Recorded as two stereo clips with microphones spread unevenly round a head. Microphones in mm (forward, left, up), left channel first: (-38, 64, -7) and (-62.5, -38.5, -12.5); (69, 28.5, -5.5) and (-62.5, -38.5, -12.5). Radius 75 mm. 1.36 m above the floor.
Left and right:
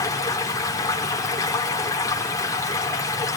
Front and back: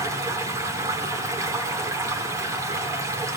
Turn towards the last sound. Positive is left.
turn(degrees=135)